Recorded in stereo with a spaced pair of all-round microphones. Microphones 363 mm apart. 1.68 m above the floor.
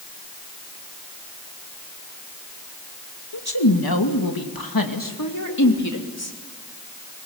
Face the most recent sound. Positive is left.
turn(degrees=40)  # may be behind; listen again after turning